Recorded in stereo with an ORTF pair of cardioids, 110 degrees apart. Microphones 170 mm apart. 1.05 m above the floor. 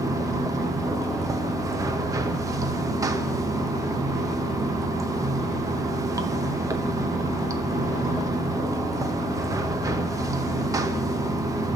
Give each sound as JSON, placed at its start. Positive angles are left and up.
{"t": 0.0, "sound": "running water", "azimuth_deg": -20, "distance_m": 0.7}